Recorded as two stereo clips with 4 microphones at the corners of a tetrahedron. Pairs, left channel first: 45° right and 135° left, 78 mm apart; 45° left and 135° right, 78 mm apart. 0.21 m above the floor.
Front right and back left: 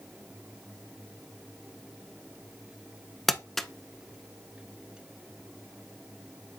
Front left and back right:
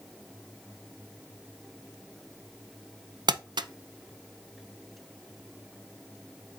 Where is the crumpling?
130° right, 0.6 m.